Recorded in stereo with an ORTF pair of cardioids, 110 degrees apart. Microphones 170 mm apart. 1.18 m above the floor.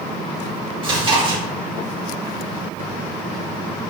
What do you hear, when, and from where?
0.8 s chewing: 35° right, 1.0 m